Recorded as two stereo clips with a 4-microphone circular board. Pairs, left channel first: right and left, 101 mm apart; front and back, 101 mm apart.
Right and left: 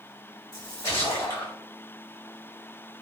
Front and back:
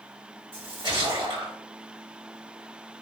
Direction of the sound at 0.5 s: 150° right.